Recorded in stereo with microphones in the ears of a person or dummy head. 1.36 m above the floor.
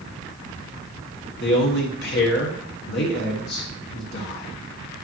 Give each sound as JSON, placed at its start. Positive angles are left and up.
{"t": 1.4, "sound": "a man speaking", "side_deg": 60, "distance_m": 1.2}